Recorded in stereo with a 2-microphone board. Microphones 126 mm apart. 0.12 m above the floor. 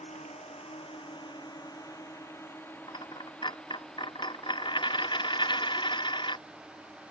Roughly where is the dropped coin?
Left.